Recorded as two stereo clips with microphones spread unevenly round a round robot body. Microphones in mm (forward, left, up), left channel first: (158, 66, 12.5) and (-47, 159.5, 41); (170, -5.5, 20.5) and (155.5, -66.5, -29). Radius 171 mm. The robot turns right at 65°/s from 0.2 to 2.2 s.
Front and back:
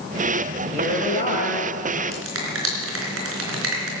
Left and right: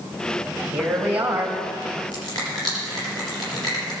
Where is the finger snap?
130° left, 4 m; by 3.9 s 135° left, 4 m.